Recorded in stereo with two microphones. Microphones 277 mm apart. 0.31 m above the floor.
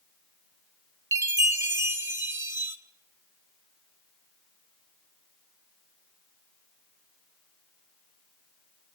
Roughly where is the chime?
Centre.